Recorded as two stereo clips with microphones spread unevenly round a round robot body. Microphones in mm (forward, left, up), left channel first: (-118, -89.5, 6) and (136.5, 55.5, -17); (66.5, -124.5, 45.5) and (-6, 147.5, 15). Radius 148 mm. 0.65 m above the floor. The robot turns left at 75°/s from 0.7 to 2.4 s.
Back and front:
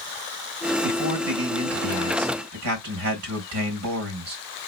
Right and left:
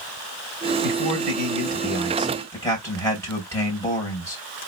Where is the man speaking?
125° left, 2.5 m; by 4.4 s 5° left, 2.5 m.